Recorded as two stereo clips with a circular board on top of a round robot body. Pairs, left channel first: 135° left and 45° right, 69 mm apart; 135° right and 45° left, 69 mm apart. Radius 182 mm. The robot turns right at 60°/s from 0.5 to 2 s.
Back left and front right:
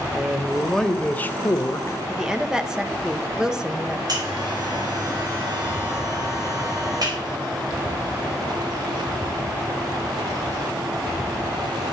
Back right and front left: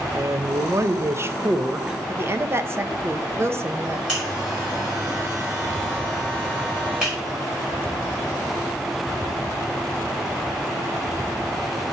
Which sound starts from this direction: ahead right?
A buzzer, at 4.1 s.